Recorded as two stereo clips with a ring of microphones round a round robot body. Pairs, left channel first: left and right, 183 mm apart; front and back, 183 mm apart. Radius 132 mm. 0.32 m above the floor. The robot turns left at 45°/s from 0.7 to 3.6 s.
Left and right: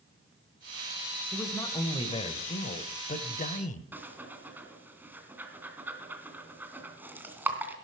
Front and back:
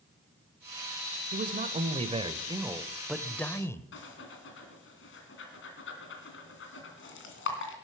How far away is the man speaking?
About 1.1 m.